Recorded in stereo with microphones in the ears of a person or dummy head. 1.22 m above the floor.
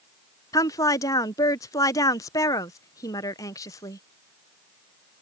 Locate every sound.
0.5 s a woman speaking: 20° left (ahead or behind)